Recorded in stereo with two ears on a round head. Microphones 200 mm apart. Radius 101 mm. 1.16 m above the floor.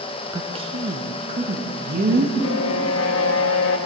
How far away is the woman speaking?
About 0.9 m.